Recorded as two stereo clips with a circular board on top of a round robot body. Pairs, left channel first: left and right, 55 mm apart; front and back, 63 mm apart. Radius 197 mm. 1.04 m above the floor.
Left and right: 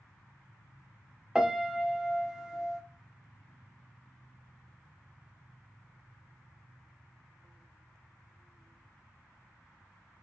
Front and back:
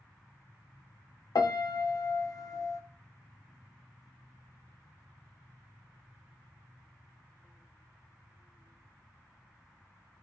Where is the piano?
10° right, 0.7 m.